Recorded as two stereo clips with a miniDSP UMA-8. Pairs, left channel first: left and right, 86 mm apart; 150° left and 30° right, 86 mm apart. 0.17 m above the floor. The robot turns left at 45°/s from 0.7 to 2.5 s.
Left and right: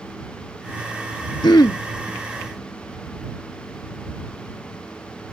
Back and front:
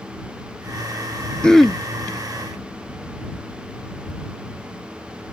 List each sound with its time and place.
1.4 s throat clearing: 75° left; by 1.8 s 55° left